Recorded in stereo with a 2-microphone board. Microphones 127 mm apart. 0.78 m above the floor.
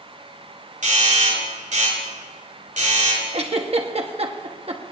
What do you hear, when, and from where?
0.8 s a doorbell: 80° right, 5.5 m
3.3 s a giggle: 50° right (ahead or behind), 1.2 m